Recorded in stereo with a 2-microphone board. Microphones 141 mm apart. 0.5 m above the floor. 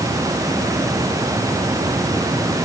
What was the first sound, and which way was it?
Only background noise.